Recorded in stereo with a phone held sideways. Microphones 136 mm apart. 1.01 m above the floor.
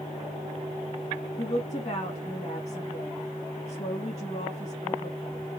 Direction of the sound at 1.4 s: 45° left (ahead or behind).